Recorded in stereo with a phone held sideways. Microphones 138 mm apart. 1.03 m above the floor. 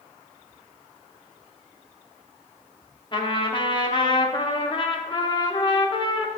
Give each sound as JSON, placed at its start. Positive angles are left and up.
{"t": 3.1, "sound": "a trumpet", "side_deg": 35, "distance_m": 0.8}